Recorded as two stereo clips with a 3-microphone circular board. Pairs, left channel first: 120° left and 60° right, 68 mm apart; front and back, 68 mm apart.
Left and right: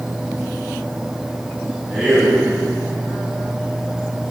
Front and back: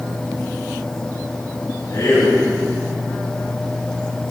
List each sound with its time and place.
1.9 s a man speaking: 20° left, 4 m